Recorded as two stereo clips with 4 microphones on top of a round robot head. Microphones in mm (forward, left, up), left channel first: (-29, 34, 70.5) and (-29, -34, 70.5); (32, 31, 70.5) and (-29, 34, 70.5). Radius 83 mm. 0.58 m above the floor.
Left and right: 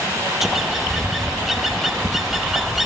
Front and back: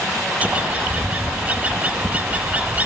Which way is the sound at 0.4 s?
170° right.